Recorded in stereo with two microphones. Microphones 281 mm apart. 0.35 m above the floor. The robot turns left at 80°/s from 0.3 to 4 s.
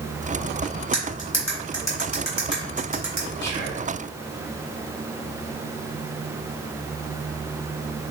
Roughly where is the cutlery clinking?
Left.